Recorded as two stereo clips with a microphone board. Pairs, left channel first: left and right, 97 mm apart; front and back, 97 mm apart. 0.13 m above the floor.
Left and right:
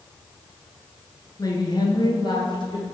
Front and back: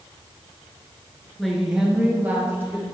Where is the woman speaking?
85° left, 1.3 m; by 2.8 s 115° left, 2 m.